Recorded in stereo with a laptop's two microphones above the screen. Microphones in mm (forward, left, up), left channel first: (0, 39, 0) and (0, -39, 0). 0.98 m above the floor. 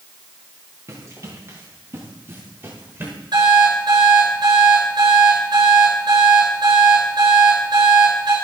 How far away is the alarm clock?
About 8 m.